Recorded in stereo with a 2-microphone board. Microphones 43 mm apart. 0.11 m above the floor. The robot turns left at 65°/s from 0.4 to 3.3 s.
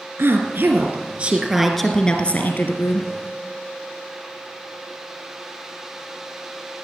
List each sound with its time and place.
0.2 s a woman speaking: 100° right, 2 m; by 3.1 s 85° left, 2 m